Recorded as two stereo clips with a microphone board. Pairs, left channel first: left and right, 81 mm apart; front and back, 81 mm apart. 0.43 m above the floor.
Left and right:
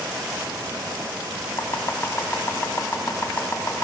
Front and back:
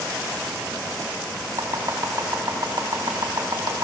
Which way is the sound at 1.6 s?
145° left.